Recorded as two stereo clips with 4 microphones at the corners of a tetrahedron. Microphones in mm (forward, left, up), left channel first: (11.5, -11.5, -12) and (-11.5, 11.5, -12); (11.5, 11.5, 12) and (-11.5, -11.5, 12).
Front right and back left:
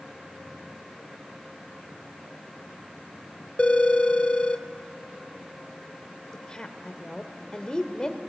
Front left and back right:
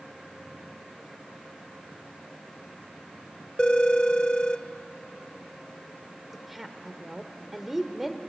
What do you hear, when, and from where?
3.6 s a phone ringing: 10° right, 0.9 m
6.3 s a woman speaking: 60° right, 1.4 m